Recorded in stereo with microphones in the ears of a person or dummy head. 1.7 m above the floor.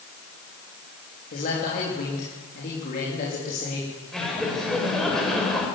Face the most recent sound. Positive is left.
turn(degrees=5)  # may be behind; listen again after turning